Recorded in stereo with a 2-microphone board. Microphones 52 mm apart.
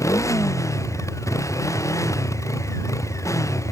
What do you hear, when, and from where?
0.0 s a motorcycle: 80° left